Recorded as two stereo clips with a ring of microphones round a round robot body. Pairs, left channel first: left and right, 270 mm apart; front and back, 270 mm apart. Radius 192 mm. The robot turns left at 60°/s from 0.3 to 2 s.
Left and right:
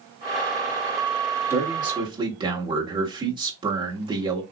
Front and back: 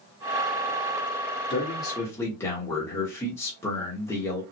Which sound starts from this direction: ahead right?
A man speaking, at 1.5 s.